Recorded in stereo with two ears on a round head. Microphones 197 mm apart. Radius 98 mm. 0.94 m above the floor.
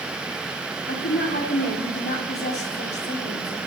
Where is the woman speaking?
50° left (ahead or behind), 2.5 m.